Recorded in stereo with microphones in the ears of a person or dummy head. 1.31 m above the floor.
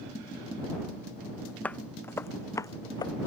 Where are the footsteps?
10° left (ahead or behind); by 3.1 s 25° left (ahead or behind).